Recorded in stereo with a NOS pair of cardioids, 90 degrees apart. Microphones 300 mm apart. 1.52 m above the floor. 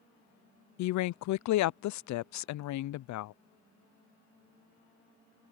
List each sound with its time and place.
0.8 s a woman speaking: 70° left